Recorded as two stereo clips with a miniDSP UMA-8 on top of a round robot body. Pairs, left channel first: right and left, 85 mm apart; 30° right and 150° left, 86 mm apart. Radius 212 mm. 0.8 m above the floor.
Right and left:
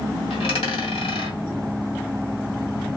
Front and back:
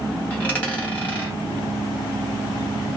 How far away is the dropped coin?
About 1.0 m.